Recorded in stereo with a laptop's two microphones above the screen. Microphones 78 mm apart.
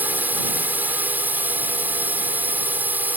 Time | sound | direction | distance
0.0 | a drone | 25° right (ahead or behind) | ?